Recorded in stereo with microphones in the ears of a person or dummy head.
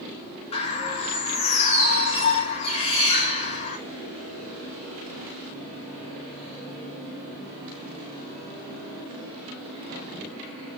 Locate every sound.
0.5 s a bird: 35° left (ahead or behind), 5 m